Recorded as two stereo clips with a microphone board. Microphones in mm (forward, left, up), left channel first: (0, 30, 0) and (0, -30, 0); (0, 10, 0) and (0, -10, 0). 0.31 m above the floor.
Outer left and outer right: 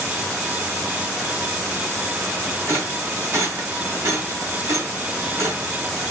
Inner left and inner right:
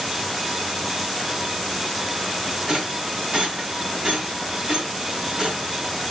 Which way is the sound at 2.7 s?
45° right (ahead or behind).